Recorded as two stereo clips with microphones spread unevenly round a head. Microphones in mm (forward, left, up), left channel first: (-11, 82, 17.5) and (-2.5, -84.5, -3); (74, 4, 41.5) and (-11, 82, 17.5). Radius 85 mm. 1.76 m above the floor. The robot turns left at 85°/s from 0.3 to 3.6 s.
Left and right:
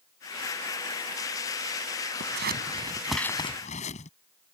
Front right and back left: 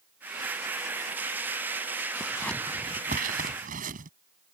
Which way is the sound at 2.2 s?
100° right.